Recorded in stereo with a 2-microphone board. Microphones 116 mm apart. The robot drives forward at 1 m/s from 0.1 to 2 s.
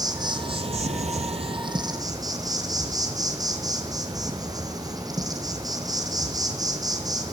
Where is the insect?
35° right (ahead or behind), 1.2 m.